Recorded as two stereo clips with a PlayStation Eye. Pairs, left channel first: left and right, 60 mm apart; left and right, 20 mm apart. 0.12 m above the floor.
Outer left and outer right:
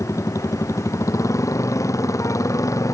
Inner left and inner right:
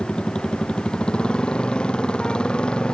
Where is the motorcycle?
55° left (ahead or behind); by 2.9 s 60° left (ahead or behind).